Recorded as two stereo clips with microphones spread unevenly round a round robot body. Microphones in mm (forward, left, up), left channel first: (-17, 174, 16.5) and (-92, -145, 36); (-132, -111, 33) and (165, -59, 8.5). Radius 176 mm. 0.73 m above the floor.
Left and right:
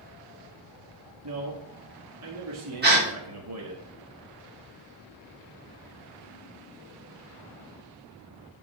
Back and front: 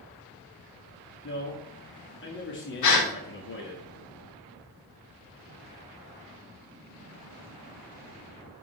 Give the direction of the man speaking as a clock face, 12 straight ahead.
4 o'clock.